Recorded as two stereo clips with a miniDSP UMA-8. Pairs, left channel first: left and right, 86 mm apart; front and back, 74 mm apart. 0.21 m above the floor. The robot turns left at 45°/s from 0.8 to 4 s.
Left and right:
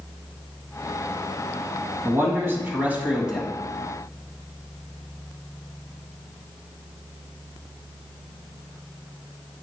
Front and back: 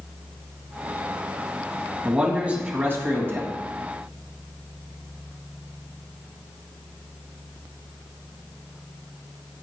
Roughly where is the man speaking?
Right.